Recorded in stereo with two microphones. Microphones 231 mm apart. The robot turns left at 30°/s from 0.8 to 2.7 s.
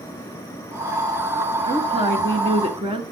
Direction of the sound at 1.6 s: 20° right (ahead or behind).